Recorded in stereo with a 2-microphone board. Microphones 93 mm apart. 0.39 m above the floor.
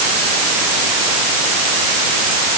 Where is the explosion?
I don't hear an explosion.